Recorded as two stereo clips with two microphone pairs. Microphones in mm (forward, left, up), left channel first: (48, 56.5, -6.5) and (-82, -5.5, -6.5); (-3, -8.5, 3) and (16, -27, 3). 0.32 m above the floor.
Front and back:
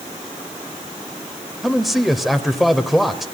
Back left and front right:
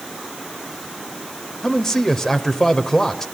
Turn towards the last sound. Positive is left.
turn(degrees=115)